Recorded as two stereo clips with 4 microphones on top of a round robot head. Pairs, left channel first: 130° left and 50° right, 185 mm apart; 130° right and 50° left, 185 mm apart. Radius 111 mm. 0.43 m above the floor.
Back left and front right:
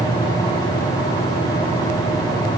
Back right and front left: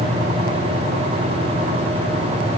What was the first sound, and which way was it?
Only background noise.